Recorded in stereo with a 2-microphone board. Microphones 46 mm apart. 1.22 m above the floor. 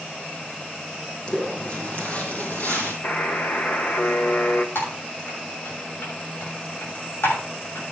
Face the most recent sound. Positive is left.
turn(degrees=70)  # may be behind; listen again after turning